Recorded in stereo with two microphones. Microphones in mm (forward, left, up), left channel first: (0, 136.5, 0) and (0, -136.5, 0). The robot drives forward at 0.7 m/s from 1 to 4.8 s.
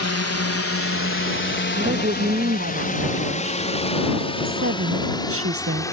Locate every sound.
0.0 s a drone: 70° left (ahead or behind); by 5.9 s 10° left (ahead or behind)
1.7 s a woman speaking: 40° right (ahead or behind); by 3.6 s 60° right (ahead or behind)
4.5 s a woman speaking: 50° right (ahead or behind); by 5.8 s 60° right (ahead or behind)